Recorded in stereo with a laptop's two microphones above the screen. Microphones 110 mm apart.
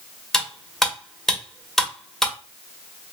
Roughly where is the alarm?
I don't hear an alarm.